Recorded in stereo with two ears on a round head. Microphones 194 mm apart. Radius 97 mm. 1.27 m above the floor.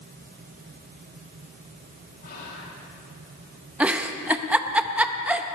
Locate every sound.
2.2 s whispering: 45° left (ahead or behind), 2.5 m
3.8 s a giggle: 5° right (ahead or behind), 0.6 m